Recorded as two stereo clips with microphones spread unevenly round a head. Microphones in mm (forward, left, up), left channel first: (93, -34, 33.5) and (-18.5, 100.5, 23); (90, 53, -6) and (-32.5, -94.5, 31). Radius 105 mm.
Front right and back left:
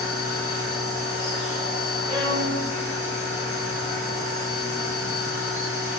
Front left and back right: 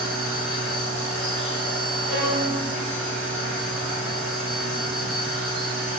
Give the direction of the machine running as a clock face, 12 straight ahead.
2 o'clock.